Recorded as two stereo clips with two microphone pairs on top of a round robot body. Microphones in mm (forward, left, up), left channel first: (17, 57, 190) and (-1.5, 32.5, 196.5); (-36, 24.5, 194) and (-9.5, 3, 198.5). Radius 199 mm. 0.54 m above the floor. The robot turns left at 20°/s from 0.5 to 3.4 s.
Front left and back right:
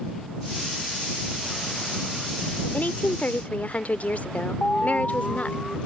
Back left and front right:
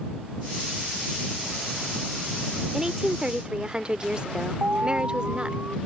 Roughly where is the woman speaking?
Ahead left.